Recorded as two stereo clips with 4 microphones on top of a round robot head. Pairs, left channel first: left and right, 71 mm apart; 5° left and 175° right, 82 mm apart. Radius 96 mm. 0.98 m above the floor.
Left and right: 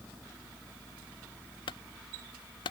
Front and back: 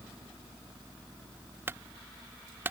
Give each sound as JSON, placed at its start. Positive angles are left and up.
{"t": 1.7, "sound": "a clunk", "azimuth_deg": 120}